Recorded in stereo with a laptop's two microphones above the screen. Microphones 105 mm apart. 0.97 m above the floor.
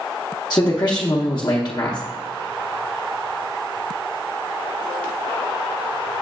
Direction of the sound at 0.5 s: 45° left (ahead or behind).